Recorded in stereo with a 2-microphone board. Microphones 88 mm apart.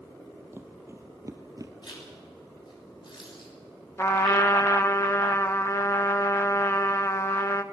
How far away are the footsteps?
About 2.5 m.